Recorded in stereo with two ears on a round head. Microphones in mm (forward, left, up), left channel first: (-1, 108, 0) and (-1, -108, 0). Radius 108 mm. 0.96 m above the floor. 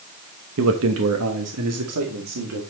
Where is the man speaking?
60° right (ahead or behind), 1.0 m; by 2.6 s 75° right (ahead or behind), 2.5 m.